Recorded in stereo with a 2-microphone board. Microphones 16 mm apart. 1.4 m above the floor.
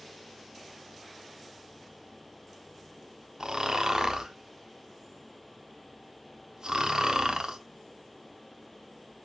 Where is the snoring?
50° right (ahead or behind), 0.5 m.